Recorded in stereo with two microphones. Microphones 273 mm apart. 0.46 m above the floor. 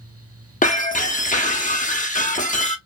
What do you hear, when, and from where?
0.6 s breaking glass: 30° left (ahead or behind), 0.5 m